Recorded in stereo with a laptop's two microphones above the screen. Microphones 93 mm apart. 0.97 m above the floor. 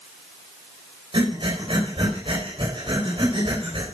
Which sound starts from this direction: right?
Breathing, at 1.1 s.